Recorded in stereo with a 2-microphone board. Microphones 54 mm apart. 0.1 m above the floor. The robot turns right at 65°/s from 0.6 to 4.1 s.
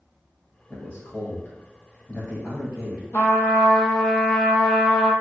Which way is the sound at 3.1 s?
130° left.